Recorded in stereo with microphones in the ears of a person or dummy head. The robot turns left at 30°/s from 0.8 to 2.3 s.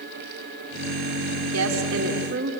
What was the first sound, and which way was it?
A woman speaking, 80° right.